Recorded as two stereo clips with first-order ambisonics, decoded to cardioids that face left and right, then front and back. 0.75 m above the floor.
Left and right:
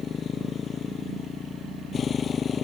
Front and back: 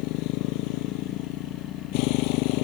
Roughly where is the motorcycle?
Ahead left.